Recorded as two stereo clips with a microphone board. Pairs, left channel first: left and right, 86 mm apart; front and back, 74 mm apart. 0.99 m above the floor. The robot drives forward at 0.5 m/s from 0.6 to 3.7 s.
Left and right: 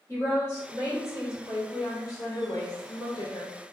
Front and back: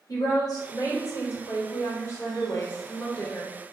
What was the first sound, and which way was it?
A woman speaking, 35° left.